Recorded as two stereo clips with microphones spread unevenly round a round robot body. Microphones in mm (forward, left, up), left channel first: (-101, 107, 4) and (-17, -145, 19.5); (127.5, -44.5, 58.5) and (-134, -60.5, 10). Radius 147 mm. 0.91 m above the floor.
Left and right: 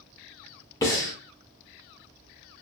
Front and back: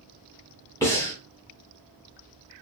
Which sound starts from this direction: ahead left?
Breathing, at 0.8 s.